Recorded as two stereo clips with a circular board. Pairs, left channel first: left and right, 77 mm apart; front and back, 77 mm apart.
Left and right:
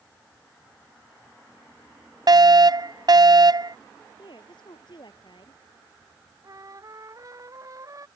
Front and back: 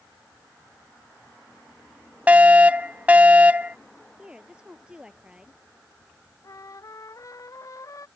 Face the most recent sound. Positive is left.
turn(degrees=-45)